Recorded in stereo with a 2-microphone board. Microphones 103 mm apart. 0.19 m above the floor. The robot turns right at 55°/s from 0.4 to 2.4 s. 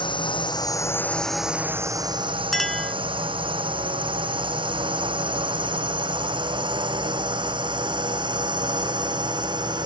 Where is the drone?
50° left (ahead or behind); by 9.9 s 45° right (ahead or behind).